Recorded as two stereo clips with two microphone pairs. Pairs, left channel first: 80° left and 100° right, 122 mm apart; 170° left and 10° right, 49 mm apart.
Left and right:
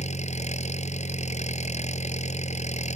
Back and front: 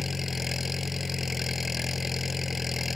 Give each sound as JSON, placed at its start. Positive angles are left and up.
{"t": 0.0, "sound": "an engine running", "azimuth_deg": 75}